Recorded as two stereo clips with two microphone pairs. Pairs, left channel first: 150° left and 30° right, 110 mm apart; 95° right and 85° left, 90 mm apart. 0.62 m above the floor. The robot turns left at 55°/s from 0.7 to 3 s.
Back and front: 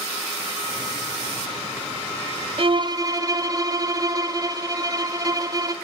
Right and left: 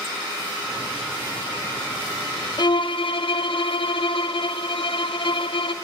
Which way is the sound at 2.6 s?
70° right.